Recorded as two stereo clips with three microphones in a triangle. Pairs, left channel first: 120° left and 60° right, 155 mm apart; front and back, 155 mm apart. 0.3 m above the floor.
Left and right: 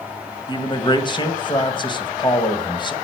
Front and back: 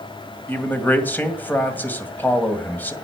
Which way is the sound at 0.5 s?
75° left.